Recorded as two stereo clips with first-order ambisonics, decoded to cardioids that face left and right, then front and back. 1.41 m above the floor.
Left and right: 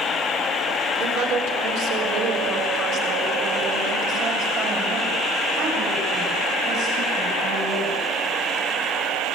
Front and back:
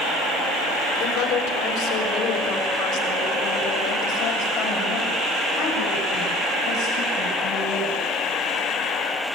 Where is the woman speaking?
50° right, 4 m.